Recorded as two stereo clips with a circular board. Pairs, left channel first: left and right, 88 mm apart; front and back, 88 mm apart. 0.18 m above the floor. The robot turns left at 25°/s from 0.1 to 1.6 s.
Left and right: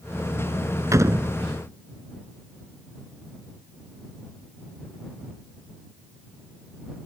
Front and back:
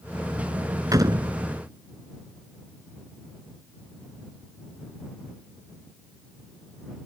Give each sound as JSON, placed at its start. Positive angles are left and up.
{"t": 0.9, "sound": "a door slam", "azimuth_deg": -140}